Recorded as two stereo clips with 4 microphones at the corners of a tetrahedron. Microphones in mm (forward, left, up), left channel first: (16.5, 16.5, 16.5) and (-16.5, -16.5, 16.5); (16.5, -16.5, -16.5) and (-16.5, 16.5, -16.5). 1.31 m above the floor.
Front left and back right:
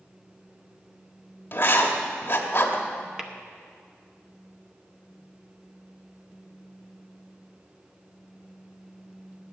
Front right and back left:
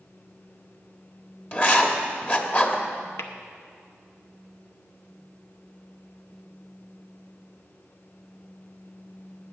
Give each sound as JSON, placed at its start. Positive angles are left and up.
{"t": 1.5, "sound": "writing", "azimuth_deg": 5, "distance_m": 1.3}
{"t": 3.2, "sound": "tapping", "azimuth_deg": -55, "distance_m": 0.9}